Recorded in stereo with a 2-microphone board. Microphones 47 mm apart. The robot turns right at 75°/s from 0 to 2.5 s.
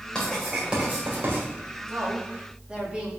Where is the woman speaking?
65° right, 2.5 m; by 3.1 s 20° right, 2.5 m.